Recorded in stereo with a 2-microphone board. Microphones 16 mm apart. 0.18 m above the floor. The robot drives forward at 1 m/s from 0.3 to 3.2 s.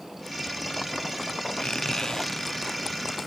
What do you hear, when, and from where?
1.6 s a squeak: 80° left, 0.6 m; by 3.3 s 20° left (ahead or behind), 1.8 m